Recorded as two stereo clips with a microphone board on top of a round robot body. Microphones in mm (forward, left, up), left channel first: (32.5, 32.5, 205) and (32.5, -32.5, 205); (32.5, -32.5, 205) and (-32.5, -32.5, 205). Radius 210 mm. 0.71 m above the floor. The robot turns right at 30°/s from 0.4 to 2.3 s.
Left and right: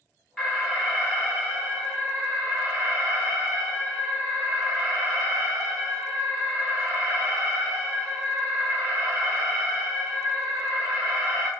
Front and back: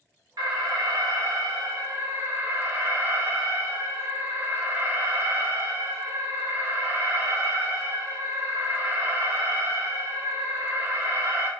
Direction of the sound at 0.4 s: Straight behind.